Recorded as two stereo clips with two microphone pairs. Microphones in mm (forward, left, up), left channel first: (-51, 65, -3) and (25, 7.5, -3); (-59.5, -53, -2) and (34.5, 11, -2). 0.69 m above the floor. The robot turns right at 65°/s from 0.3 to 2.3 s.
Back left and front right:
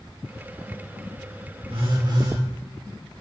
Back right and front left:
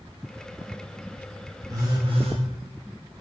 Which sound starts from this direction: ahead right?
A phone buzzing, at 1.7 s.